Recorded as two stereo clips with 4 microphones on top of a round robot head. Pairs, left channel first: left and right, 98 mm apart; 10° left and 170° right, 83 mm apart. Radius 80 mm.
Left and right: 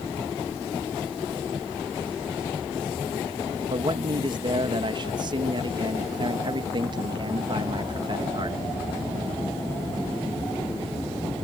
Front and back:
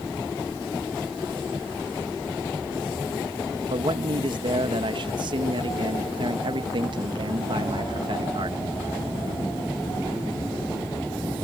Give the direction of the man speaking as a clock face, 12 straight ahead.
5 o'clock.